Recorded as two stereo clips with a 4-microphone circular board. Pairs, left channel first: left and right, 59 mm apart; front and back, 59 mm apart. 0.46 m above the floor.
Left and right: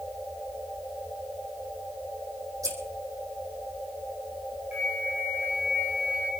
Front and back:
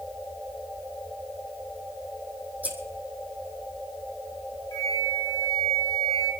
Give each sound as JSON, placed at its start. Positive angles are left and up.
{"t": 2.6, "sound": "scissors", "azimuth_deg": -115, "distance_m": 3.5}
{"t": 4.7, "sound": "a flute", "azimuth_deg": -20, "distance_m": 1.7}